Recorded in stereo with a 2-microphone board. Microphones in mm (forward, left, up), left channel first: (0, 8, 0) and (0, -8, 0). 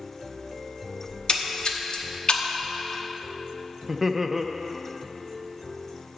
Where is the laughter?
15° right (ahead or behind), 0.5 m.